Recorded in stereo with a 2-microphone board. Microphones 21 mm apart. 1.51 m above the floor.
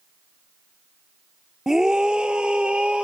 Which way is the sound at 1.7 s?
20° right (ahead or behind).